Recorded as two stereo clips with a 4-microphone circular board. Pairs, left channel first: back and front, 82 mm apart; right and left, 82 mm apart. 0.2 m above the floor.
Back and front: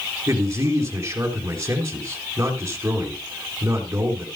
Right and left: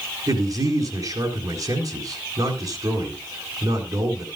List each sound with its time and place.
0.3 s a man speaking: 60° left, 4 m